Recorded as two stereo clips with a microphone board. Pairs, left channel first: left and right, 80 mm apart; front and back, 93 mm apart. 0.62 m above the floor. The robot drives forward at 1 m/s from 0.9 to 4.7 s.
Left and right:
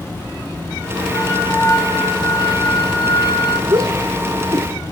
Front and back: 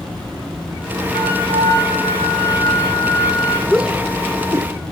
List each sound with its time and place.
1.1 s a flute: 35° left, 7.5 m; by 3.6 s 50° left, 5.5 m
3.7 s a shout: 95° right, 1.3 m; by 4.7 s 135° right, 1.7 m